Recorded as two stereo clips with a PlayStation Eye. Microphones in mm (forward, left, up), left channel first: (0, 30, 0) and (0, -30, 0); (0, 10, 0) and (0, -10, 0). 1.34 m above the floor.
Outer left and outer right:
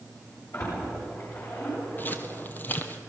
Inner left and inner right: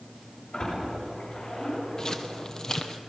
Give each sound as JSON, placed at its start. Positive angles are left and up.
{"t": 0.5, "sound": "a splash", "side_deg": 55, "distance_m": 9.0}
{"t": 2.0, "sound": "footsteps", "side_deg": 35, "distance_m": 1.6}